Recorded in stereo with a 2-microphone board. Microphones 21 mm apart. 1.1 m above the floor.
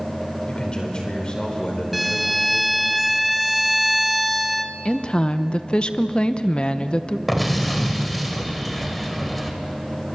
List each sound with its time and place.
0.5 s a man speaking: 40° left (ahead or behind), 4.5 m
1.9 s a violin: centre (ahead or behind), 0.9 m
4.8 s a woman speaking: 50° left (ahead or behind), 0.9 m
7.3 s an explosion: 5° left (ahead or behind), 2.5 m